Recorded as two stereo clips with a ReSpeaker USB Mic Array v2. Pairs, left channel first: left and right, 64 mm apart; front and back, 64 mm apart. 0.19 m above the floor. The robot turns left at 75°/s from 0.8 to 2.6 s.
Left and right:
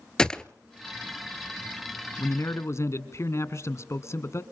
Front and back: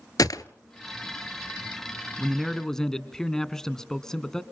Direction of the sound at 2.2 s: 110° left.